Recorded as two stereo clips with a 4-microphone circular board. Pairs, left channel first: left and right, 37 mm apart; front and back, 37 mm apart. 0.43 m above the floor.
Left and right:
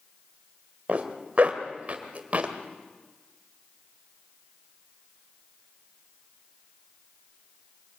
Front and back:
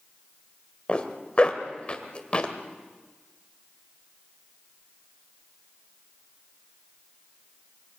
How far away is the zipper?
About 1.9 m.